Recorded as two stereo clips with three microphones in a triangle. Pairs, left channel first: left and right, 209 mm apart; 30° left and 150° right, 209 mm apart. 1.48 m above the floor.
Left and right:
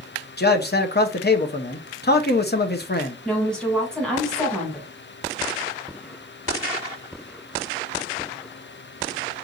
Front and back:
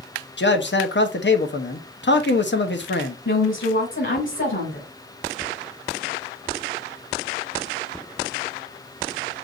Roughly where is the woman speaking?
Ahead.